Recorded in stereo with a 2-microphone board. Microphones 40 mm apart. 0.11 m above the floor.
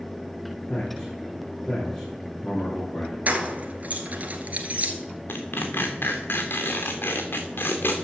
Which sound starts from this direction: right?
Keys jangling, at 3.3 s.